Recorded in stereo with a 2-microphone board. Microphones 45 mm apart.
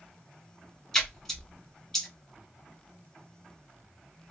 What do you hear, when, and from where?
0.9 s a splash: 10° left (ahead or behind), 0.6 m